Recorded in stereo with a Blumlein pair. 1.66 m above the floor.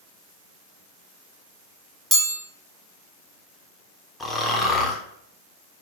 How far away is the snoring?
About 0.5 m.